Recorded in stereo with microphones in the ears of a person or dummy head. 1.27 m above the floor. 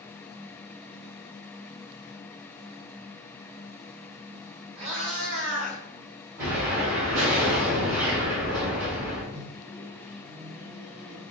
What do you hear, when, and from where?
4.8 s a cat meowing: 25° right (ahead or behind), 1.1 m; by 5.8 s 5° left (ahead or behind), 1.1 m
6.4 s an explosion: 15° right (ahead or behind), 1.1 m
9.3 s a microwave: 40° right (ahead or behind), 0.9 m